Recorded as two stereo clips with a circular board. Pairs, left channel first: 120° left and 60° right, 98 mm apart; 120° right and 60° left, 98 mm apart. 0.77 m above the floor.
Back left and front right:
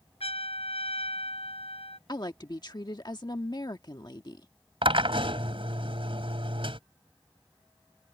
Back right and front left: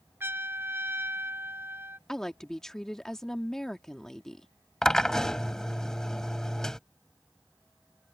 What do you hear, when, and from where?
0.2 s a trumpet: 125° left
2.1 s a woman speaking: 155° left
4.8 s a drill: 35° right